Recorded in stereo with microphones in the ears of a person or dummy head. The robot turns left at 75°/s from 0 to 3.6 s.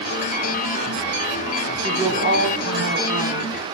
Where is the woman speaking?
10° right, 3.5 m; by 3.5 s 135° right, 3.5 m.